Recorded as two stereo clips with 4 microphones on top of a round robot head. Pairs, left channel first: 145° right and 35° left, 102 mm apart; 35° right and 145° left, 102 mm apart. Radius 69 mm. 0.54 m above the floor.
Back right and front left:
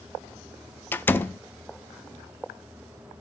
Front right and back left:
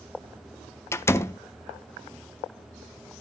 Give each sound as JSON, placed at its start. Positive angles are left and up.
{"t": 0.9, "sound": "a door slam", "azimuth_deg": -85, "distance_m": 0.5}